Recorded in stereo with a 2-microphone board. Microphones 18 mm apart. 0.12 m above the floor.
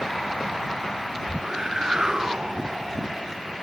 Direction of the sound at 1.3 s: 40° right (ahead or behind).